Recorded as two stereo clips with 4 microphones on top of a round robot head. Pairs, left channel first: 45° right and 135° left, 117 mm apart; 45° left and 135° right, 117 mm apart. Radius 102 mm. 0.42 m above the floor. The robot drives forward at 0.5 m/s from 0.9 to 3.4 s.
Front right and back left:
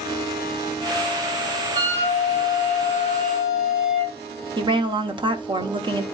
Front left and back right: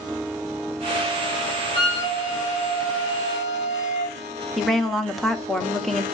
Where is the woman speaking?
135° left, 1.1 m.